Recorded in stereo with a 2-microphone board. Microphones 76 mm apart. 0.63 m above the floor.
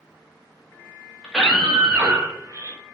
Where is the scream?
5° left (ahead or behind), 1.1 m; by 2.8 s 40° right (ahead or behind), 1.2 m.